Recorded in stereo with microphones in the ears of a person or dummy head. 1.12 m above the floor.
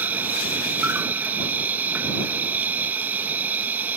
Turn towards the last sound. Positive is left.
turn(degrees=-10)  # may be behind; listen again after turning